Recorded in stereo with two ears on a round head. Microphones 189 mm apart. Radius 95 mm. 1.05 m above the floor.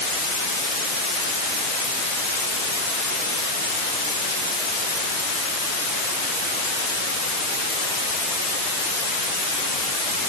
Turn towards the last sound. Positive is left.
No sound to turn to.